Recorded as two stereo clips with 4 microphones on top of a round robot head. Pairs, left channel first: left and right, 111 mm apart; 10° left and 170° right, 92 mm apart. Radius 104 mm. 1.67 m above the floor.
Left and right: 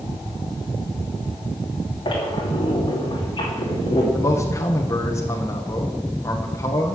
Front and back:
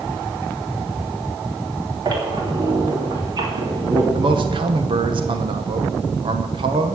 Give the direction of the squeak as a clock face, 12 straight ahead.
7 o'clock.